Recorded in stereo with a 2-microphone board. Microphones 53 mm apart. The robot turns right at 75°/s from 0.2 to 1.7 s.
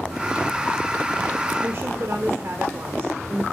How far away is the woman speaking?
About 1.2 m.